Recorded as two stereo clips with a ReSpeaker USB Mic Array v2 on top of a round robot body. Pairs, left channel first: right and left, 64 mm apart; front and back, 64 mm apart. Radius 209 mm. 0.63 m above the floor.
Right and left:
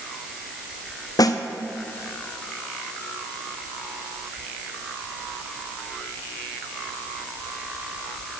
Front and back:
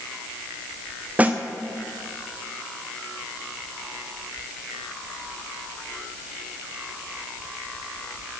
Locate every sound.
1.2 s a snare drum: 115° right, 0.7 m